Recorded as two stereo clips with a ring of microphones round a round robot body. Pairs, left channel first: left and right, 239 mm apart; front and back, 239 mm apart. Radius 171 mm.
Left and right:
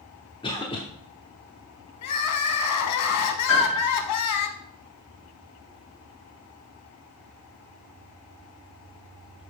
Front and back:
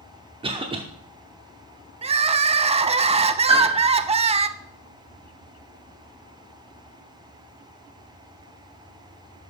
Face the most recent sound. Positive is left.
turn(degrees=115)